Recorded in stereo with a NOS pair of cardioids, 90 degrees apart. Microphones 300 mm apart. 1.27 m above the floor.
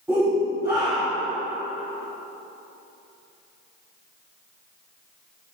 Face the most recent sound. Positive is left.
turn(degrees=-10)